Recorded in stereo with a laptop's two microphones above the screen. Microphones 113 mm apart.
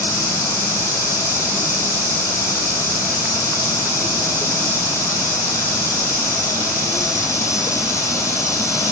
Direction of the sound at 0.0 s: 25° left (ahead or behind).